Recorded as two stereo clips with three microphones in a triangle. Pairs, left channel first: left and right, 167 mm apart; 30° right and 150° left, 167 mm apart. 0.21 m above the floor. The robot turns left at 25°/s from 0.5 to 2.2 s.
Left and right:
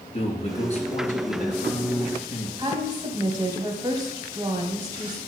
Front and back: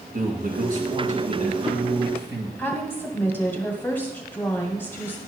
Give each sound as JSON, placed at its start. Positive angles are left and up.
{"t": 0.1, "sound": "a man speaking", "azimuth_deg": 135, "distance_m": 2.5}
{"t": 2.6, "sound": "a woman speaking", "azimuth_deg": -90, "distance_m": 1.3}